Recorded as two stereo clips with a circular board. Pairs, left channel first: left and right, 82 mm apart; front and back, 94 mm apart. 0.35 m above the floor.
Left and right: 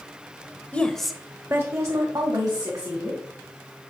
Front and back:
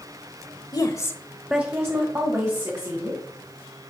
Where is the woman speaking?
20° left, 1.2 m; by 3.2 s 135° right, 3 m.